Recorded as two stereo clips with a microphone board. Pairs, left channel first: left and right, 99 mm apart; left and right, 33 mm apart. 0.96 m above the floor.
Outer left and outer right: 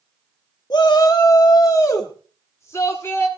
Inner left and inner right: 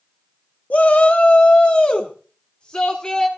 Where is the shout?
45° left (ahead or behind), 1.6 m; by 3.3 s 25° left (ahead or behind), 2.5 m.